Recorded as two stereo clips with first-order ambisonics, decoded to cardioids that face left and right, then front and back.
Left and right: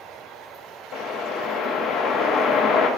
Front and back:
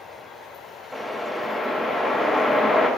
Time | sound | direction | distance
0.9 | a whoosh | 85° left | 1.0 m